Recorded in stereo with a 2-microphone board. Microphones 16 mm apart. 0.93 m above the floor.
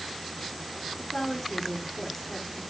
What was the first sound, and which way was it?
A woman speaking, 15° left (ahead or behind).